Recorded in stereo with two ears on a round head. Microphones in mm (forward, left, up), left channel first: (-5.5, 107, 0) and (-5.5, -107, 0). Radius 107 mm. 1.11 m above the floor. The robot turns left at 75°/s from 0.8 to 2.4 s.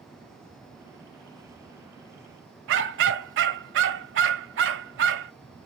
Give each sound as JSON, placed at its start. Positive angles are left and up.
{"t": 2.7, "sound": "a dog barking", "side_deg": -55, "distance_m": 1.4}